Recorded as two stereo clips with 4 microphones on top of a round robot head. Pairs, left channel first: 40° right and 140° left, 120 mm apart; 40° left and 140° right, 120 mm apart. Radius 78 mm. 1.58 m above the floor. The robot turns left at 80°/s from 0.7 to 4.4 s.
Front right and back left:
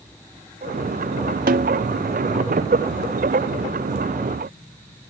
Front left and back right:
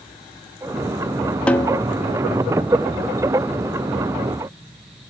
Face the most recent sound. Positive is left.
turn(degrees=-110)